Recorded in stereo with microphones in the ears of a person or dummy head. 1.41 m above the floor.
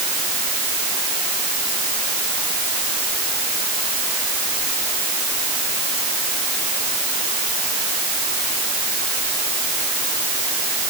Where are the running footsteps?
No running footsteps in this recording.